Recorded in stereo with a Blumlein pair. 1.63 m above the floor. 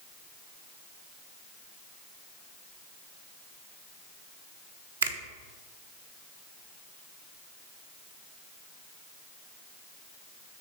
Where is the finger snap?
65° right, 0.9 m.